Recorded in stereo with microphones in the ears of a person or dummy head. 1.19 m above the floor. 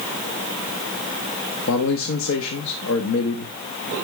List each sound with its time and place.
1.7 s a man speaking: 70° left (ahead or behind), 0.8 m